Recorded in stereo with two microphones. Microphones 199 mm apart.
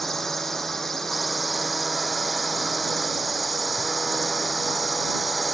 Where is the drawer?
I don't hear a drawer.